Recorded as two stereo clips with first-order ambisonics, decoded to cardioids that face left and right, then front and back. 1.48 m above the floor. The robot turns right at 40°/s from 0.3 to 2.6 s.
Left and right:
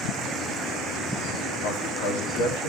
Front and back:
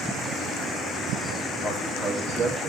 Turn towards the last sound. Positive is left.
turn(degrees=105)